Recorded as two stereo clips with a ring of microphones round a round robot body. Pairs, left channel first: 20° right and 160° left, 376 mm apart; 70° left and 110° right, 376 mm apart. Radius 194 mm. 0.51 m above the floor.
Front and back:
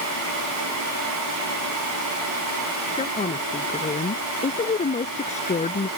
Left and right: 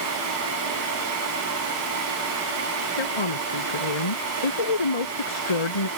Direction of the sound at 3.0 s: 50° left.